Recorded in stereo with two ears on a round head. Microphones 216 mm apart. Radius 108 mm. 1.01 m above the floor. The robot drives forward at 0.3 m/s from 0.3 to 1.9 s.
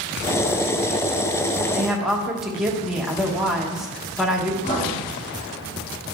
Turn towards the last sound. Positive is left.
turn(degrees=20)  # may be behind; listen again after turning